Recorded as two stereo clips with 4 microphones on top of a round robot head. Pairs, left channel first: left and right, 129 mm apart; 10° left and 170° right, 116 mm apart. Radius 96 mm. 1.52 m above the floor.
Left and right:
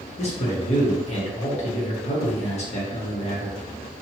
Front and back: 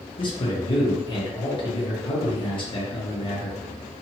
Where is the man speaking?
55° left, 1.1 m.